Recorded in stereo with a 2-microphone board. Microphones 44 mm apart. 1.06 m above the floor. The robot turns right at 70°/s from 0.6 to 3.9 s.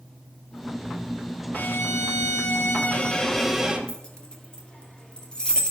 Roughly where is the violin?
Ahead left.